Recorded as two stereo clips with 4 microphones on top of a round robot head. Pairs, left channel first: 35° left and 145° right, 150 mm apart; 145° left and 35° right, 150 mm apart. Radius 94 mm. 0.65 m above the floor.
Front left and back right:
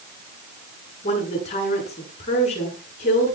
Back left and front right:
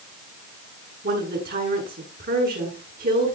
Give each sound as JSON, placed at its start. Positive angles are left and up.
{"t": 1.0, "sound": "a woman speaking", "azimuth_deg": -10, "distance_m": 8.5}